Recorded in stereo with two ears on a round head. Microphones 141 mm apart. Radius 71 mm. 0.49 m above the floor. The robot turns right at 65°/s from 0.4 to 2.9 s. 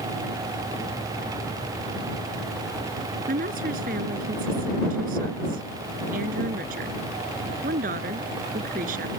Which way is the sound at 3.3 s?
60° right (ahead or behind).